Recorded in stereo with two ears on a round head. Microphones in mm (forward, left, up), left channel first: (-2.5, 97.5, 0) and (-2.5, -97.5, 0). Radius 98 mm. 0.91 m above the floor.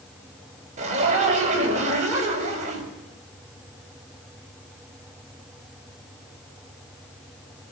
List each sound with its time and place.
0.8 s a zipper: 35° right (ahead or behind), 5.5 m